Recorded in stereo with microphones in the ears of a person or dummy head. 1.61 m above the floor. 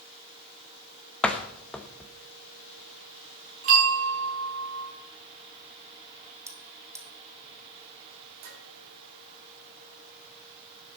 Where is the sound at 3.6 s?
45° right (ahead or behind), 4 m.